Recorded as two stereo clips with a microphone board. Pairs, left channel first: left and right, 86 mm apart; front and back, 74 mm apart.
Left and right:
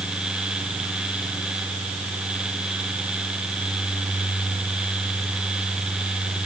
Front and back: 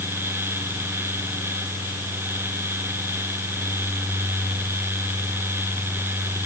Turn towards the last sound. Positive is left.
No sound to turn to.